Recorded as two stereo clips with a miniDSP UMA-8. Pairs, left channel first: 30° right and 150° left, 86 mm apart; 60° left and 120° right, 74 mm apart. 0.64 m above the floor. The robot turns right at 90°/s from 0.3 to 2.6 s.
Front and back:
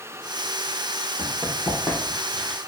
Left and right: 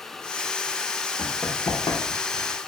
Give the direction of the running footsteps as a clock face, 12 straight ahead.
12 o'clock.